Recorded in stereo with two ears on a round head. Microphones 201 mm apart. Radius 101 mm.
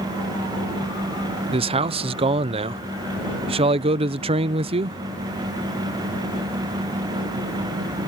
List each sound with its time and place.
1.5 s a man speaking: 25° right (ahead or behind)